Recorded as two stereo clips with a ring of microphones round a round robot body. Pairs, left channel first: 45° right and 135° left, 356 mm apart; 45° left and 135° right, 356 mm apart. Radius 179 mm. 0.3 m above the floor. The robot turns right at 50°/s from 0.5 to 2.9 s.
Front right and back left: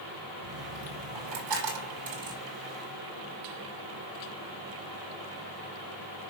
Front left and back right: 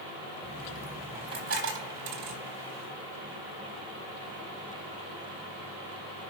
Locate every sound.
0.4 s a dropped coin: 125° left, 5 m; by 2.4 s 140° right, 5 m